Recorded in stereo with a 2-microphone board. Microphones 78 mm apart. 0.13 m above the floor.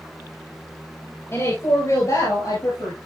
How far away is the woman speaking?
About 3 m.